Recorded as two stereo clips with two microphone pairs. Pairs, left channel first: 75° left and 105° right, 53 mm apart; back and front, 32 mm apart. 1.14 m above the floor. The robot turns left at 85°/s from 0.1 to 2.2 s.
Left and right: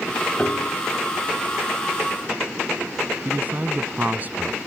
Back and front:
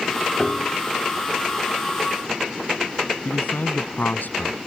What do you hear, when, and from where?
0.4 s a piano: 130° left; by 0.8 s 95° left
3.2 s a man speaking: 160° right